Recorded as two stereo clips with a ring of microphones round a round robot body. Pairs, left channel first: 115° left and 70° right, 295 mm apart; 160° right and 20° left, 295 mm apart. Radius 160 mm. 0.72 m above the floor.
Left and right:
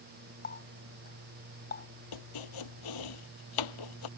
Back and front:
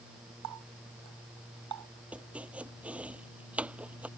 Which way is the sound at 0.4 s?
55° left.